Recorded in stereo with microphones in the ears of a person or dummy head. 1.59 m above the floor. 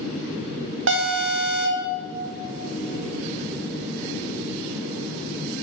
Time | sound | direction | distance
0.9 | an alarm | 65° right (ahead or behind) | 1.3 m